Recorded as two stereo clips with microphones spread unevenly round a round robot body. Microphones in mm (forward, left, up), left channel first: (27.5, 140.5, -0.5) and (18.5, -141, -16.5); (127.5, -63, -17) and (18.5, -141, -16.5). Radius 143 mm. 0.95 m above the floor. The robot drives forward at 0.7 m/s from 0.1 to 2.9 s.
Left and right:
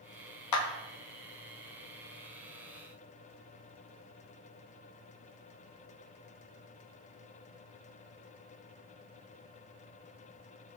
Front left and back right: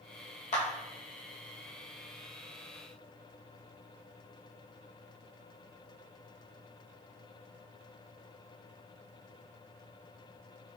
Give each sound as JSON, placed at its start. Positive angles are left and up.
{"t": 0.5, "sound": "a clap", "azimuth_deg": 75, "distance_m": 0.6}